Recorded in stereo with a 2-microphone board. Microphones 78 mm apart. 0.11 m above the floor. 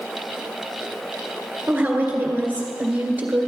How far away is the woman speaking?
About 1.8 m.